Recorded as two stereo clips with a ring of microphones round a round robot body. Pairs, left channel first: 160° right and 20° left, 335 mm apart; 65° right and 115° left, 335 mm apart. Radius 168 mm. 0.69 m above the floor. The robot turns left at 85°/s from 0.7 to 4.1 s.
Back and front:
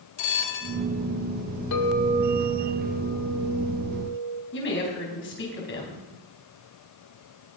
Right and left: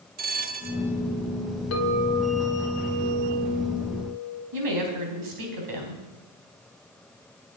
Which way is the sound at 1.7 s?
115° right.